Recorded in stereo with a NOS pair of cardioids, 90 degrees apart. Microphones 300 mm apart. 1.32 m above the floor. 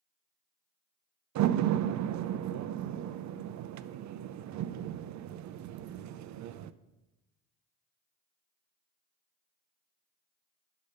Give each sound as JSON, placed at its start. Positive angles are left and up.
{"t": 1.4, "sound": "a door slam", "azimuth_deg": -70, "distance_m": 0.5}